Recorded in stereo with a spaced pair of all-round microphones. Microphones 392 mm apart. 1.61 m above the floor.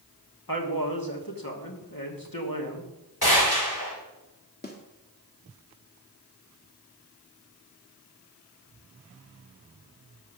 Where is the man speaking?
60° left (ahead or behind), 2.5 m.